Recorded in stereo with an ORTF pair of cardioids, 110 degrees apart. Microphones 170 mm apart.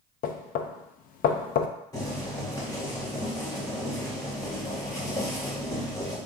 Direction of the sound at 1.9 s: 20° left.